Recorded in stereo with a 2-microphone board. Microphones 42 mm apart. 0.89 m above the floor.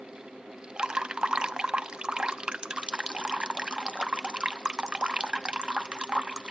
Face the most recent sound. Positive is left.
turn(degrees=-20)  # may be behind; listen again after turning